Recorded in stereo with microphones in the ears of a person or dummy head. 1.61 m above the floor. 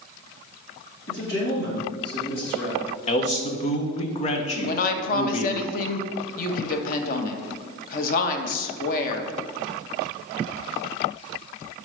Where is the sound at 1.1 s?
70° left (ahead or behind), 2.5 m.